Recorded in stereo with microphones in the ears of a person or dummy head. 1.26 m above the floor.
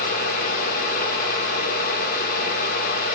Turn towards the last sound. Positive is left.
turn(degrees=55)  # may be behind; listen again after turning